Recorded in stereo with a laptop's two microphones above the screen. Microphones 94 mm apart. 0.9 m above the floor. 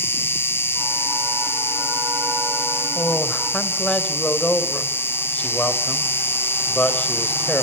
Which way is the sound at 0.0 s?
25° left (ahead or behind).